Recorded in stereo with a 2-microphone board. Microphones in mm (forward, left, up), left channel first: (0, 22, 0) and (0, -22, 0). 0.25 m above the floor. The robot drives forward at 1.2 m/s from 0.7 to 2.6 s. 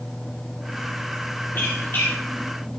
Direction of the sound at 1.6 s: 55° left (ahead or behind).